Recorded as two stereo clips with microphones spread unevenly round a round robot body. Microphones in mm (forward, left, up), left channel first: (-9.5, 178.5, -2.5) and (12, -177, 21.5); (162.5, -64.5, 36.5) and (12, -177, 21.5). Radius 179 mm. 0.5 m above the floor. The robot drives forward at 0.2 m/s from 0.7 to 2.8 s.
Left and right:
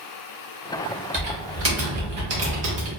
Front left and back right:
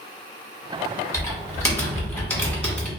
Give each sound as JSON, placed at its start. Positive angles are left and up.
{"t": 1.1, "sound": "typing on a keyboard", "azimuth_deg": -40, "distance_m": 1.5}